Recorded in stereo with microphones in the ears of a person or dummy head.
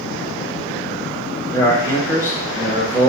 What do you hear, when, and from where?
1.5 s a man speaking: 20° left (ahead or behind), 0.9 m